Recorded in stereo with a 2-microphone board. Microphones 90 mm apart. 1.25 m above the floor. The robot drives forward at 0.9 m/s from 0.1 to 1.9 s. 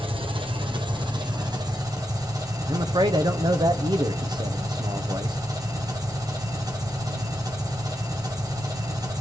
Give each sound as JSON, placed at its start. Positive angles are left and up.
{"t": 0.0, "sound": "an engine running", "side_deg": -65, "distance_m": 1.7}
{"t": 2.7, "sound": "a man speaking", "side_deg": -55, "distance_m": 0.9}